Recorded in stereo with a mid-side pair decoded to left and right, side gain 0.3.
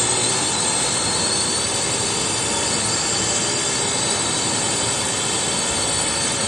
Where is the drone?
20° left.